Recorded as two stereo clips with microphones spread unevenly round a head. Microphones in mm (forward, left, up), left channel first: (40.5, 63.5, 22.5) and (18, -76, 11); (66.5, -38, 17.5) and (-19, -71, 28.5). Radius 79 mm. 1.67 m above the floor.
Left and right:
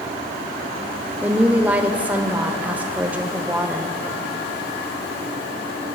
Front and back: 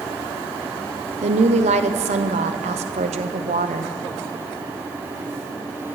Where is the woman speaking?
Straight behind, 0.6 m.